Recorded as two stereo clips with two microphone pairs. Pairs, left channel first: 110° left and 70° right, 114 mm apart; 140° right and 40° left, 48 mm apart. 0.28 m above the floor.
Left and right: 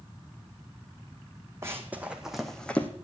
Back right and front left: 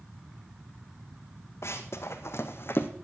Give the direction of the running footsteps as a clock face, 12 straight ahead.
5 o'clock.